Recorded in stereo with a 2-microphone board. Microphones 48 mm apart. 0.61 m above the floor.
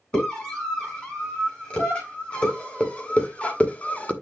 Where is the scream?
20° left (ahead or behind), 6 m; by 4.1 s 25° left (ahead or behind), 0.9 m.